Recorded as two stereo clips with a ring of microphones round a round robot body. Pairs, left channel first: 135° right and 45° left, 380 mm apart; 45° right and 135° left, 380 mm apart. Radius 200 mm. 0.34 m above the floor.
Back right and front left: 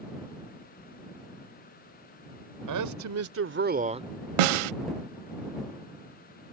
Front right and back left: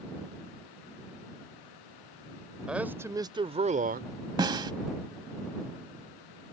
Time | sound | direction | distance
2.7 | a man speaking | 50° left | ?
4.4 | a snare drum | 55° left | ?